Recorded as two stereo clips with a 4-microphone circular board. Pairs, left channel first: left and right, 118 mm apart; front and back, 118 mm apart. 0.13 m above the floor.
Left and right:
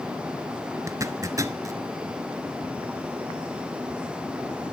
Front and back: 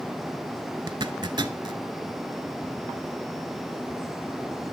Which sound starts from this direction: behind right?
A zipper, at 0.9 s.